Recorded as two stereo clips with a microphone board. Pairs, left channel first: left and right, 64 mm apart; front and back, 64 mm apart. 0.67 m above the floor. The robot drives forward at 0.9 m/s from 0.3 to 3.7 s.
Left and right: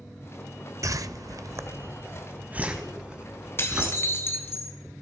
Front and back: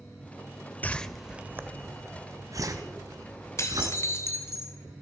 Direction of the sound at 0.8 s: 65° right.